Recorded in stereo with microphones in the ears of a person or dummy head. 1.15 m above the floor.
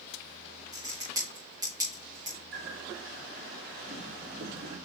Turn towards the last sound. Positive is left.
turn(degrees=-55)  # may be behind; listen again after turning